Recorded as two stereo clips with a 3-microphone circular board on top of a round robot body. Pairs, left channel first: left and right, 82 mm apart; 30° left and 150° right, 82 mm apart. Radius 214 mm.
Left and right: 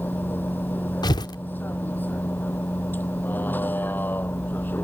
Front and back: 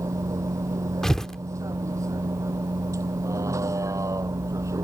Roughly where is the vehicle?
Behind left.